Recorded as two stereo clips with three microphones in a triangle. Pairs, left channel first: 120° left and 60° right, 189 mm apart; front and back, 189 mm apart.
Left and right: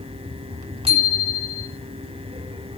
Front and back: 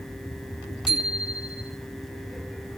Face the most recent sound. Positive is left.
turn(degrees=155)